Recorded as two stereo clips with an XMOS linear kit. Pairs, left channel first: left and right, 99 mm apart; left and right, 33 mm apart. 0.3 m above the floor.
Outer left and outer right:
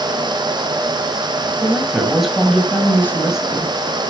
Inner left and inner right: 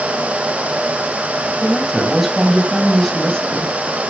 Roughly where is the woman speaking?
Centre.